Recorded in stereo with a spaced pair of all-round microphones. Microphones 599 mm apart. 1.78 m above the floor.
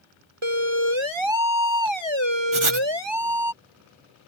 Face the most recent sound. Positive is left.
turn(degrees=-55)  # may be behind; listen again after turning